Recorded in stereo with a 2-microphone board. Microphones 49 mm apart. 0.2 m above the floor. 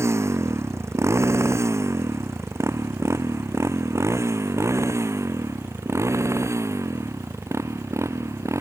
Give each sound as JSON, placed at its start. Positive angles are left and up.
{"t": 0.0, "sound": "a motorcycle", "side_deg": -65}